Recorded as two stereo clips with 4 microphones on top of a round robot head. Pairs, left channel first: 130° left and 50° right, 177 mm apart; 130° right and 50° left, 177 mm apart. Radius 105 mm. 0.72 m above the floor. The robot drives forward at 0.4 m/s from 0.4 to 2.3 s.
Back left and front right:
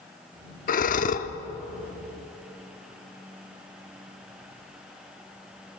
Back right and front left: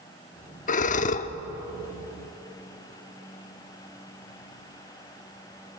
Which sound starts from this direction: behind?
Breathing, at 0.7 s.